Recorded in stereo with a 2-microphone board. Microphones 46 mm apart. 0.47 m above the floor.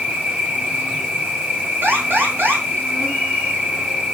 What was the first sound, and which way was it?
An insect, 25° right (ahead or behind).